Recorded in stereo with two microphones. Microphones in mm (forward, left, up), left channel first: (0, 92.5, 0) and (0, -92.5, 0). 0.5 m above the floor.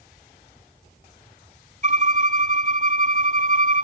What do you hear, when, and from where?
1.8 s a violin: 45° right (ahead or behind), 1.1 m